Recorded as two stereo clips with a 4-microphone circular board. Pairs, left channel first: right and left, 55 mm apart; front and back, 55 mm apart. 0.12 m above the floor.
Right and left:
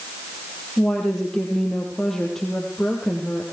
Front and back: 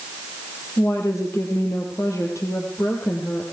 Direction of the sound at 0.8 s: 10° right.